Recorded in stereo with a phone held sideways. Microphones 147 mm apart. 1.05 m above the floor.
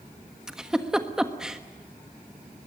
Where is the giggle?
5° right (ahead or behind), 1.4 m.